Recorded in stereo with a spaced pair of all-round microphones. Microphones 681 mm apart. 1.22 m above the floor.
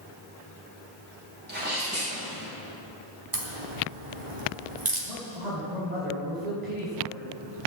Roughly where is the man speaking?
Right.